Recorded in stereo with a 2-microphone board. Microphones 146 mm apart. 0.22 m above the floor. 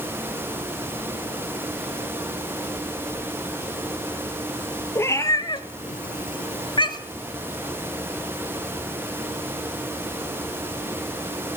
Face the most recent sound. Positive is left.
turn(degrees=25)  # may be behind; listen again after turning